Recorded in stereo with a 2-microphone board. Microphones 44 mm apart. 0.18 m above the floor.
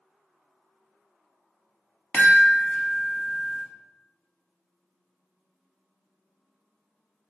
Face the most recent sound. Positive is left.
turn(degrees=35)  # may be behind; listen again after turning